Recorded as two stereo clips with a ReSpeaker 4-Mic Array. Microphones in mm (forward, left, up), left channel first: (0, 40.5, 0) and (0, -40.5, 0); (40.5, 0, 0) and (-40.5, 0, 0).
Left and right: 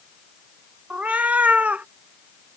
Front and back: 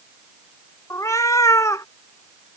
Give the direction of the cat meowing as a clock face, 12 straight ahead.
1 o'clock.